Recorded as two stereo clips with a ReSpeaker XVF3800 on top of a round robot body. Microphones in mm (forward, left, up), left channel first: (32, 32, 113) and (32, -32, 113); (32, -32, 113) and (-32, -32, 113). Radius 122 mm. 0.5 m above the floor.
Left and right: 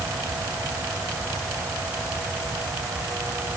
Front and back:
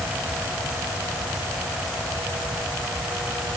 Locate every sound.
Only background noise.